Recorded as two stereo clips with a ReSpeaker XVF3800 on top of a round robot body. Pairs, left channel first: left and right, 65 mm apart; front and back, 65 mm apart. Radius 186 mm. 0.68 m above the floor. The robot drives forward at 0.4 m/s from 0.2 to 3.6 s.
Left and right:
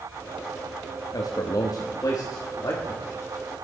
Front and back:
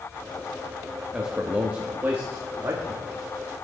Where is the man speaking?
100° left, 1.1 m; by 3.1 s 135° left, 1.5 m.